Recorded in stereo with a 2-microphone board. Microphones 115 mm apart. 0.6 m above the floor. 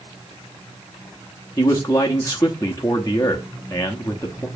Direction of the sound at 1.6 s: 25° left (ahead or behind).